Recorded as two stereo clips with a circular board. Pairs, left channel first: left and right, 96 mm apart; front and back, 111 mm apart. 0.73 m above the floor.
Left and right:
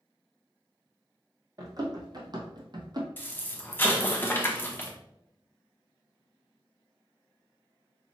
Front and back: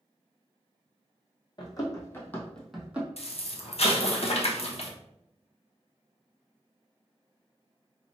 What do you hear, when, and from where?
1.6 s running footsteps: 45° right, 1.4 m; by 3.1 s 110° right, 1.0 m
3.2 s an explosion: 20° left, 0.8 m